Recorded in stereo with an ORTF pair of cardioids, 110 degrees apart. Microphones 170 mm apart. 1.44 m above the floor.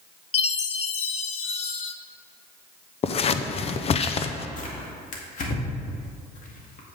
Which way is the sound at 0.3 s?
40° left.